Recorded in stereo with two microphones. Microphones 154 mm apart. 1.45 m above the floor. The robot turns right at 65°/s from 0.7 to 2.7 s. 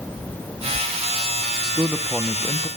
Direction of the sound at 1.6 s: 35° right.